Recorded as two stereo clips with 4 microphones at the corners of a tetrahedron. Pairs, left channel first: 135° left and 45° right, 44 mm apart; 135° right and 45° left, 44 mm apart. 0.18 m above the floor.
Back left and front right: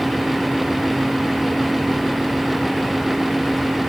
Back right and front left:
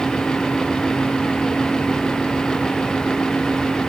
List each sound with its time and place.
Only background noise.